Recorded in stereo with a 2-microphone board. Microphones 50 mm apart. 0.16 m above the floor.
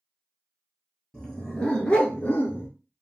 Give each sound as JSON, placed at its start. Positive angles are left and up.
{"t": 1.1, "sound": "a dog barking", "side_deg": 10, "distance_m": 1.1}